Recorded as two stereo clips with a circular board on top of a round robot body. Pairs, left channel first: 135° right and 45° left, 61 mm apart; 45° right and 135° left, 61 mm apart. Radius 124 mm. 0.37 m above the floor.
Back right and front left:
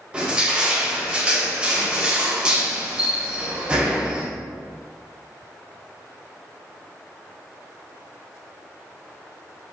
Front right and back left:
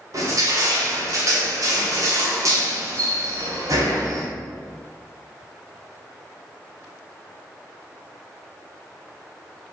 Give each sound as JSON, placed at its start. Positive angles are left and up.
{"t": 0.1, "sound": "crushing", "azimuth_deg": 115, "distance_m": 2.0}